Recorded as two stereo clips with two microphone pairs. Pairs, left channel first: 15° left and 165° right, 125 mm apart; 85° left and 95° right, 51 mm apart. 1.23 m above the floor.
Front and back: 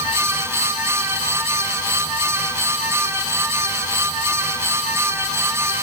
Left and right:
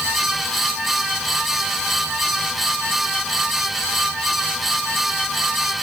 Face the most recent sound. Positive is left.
No sound to turn to.